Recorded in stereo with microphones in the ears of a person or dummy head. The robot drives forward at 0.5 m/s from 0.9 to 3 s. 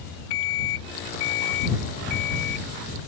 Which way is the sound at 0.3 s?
75° left (ahead or behind).